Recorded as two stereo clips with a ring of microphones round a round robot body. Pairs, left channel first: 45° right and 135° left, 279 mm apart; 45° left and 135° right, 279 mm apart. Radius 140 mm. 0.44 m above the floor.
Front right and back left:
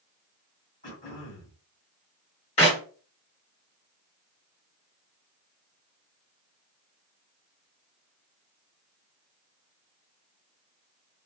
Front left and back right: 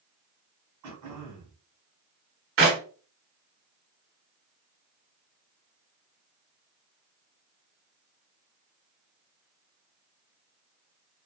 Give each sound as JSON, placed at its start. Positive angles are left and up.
{"t": 0.8, "sound": "throat clearing", "azimuth_deg": -100, "distance_m": 1.6}
{"t": 2.6, "sound": "a clap", "azimuth_deg": -105, "distance_m": 1.5}